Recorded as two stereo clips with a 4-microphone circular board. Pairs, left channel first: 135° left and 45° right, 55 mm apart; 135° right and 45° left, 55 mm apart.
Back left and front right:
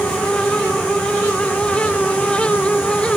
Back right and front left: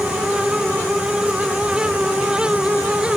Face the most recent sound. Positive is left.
No sound to turn to.